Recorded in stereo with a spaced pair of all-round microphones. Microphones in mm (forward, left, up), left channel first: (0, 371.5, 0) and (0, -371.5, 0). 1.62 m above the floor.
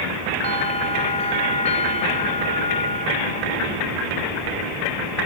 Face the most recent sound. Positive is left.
turn(degrees=10)  # may be behind; listen again after turning